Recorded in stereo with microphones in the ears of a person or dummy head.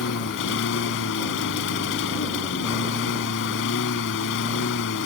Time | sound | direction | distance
0.0 | a lawn mower | 70° left (ahead or behind) | ?